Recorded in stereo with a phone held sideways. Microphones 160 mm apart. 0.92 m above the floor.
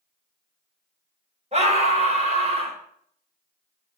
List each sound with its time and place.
1.5 s a scream: 40° right (ahead or behind), 3.5 m